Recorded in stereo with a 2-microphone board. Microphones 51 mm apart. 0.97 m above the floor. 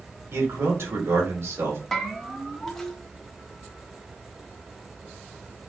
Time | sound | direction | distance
0.3 | a man speaking | 60° right (ahead or behind) | 2.5 m
1.9 | a bell | 5° left (ahead or behind) | 1.1 m